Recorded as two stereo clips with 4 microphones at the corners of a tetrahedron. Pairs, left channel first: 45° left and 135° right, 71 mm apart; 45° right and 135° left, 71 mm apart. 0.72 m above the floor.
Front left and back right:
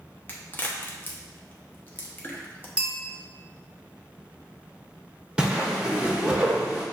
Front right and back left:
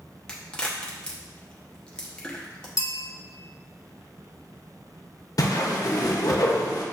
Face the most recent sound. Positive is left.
turn(degrees=-60)